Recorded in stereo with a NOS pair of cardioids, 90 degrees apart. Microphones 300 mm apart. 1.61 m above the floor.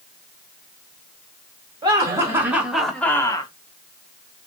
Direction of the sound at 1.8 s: 15° right.